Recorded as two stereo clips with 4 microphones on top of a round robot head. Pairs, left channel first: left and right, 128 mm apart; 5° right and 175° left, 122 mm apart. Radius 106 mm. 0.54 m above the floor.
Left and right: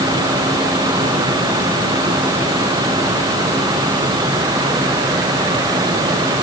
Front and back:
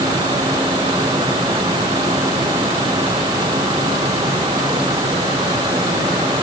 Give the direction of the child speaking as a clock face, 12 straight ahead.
I don't hear a child speaking.